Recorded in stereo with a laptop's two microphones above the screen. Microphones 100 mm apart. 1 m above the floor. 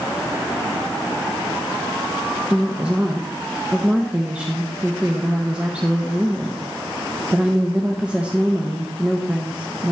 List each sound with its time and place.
2.5 s a woman speaking: 10° right (ahead or behind), 0.6 m